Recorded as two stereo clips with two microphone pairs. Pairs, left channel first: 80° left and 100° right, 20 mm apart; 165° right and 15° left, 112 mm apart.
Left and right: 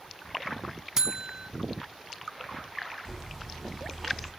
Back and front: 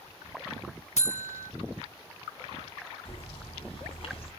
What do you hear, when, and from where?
1.0 s a buzzer: 155° right, 0.5 m
3.0 s a bird: 165° left, 3 m